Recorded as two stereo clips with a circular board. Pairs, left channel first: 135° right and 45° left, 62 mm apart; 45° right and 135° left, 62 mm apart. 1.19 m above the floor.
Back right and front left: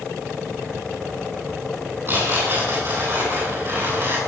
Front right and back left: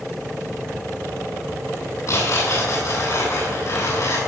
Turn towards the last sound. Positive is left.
turn(degrees=-10)